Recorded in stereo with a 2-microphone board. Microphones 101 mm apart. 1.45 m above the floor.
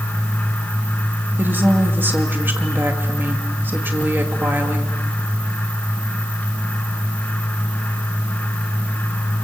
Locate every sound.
1.4 s a woman speaking: 20° right (ahead or behind), 2.5 m